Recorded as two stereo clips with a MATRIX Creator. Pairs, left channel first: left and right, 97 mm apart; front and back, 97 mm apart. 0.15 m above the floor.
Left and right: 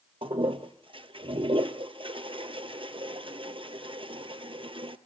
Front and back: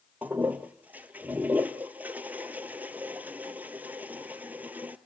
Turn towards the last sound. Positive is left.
turn(degrees=-105)